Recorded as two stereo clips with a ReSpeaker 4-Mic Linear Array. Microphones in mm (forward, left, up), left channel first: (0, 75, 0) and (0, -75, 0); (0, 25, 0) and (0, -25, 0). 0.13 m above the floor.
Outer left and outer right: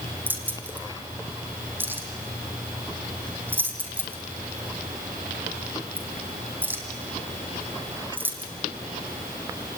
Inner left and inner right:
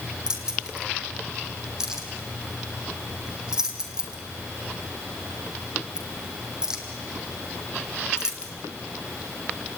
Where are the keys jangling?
15° right (ahead or behind), 3.5 m.